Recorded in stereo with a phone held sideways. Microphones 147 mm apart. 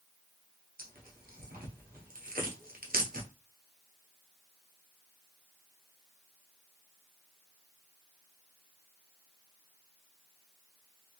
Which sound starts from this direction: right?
Tearing paper, at 0.8 s.